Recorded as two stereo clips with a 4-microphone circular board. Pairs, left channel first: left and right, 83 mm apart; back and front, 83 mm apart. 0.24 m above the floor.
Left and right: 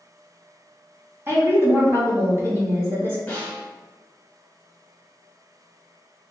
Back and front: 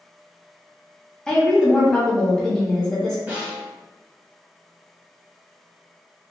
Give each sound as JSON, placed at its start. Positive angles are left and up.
{"t": 1.3, "sound": "a woman speaking", "azimuth_deg": -110, "distance_m": 1.1}
{"t": 3.3, "sound": "a snare drum", "azimuth_deg": 40, "distance_m": 0.8}